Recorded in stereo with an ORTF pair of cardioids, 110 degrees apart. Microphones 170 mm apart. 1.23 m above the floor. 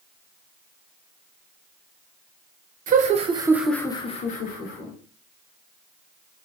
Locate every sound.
2.9 s laughter: 50° right, 0.8 m; by 4.9 s 65° left, 1.1 m